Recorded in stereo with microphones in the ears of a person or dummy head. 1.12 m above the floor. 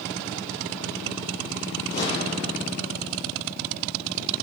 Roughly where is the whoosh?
Left.